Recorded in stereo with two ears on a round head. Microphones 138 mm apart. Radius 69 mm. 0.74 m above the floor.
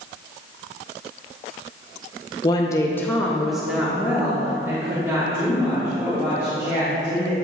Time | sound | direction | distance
2.4 | a woman speaking | 25° left (ahead or behind) | 0.7 m